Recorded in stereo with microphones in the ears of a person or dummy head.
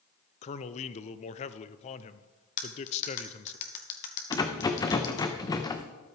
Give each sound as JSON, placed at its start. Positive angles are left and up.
{"t": 0.4, "sound": "a man speaking", "side_deg": 35, "distance_m": 0.6}
{"t": 2.6, "sound": "cutlery clinking", "side_deg": 40, "distance_m": 1.5}
{"t": 4.3, "sound": "a rattle", "side_deg": 15, "distance_m": 0.6}